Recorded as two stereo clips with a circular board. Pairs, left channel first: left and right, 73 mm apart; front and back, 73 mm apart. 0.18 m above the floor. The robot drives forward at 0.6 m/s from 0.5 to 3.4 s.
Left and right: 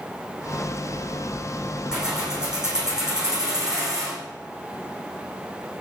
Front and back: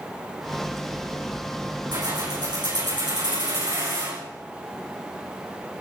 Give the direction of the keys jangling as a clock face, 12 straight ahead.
6 o'clock.